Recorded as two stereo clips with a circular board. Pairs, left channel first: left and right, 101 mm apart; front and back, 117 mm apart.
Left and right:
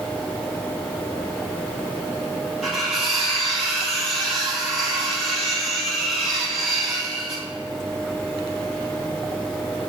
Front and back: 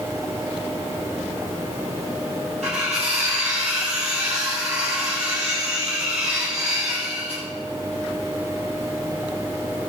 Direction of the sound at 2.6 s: Straight behind.